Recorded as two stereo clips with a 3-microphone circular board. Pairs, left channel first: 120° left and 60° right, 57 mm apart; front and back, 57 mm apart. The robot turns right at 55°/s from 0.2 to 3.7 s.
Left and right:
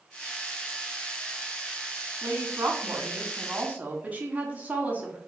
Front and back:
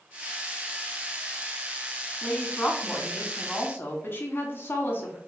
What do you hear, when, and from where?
2.2 s a woman speaking: 95° right, 1.1 m; by 5.2 s 10° right, 1.1 m